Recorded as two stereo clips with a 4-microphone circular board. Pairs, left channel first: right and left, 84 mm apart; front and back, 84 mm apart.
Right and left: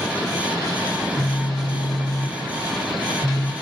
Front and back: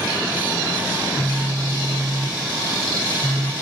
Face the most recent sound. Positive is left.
turn(degrees=-130)